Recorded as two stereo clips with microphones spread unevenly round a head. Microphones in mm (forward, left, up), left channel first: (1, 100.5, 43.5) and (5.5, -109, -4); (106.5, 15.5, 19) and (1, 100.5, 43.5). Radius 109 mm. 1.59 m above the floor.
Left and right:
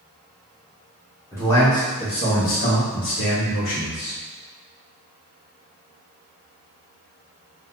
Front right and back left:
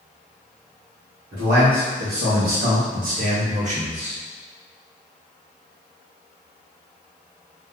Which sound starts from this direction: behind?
A man speaking, at 1.3 s.